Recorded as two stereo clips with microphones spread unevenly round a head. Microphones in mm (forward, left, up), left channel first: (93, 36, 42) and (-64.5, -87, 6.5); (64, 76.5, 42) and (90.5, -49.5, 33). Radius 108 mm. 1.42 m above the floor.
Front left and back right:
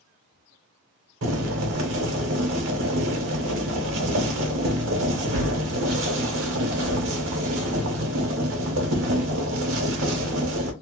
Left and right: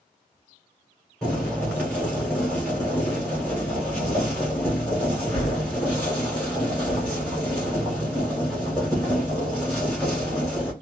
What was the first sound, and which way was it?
Boiling, 175° right.